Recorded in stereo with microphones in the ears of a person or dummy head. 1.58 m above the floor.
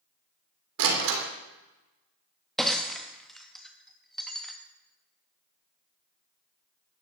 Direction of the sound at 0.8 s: 75° right (ahead or behind).